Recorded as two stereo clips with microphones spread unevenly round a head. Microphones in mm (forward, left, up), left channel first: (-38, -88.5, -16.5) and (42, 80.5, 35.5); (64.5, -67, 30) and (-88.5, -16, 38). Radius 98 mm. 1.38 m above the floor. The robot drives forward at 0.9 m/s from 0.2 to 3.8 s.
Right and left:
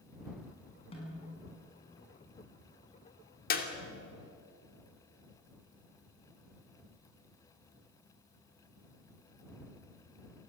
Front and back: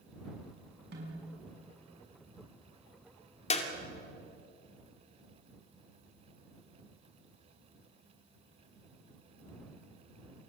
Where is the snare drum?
Straight behind, 6.5 m.